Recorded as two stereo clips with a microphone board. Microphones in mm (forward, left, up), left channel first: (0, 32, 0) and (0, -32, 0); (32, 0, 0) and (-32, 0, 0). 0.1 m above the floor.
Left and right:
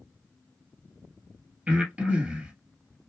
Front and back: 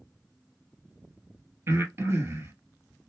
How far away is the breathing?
About 1.8 m.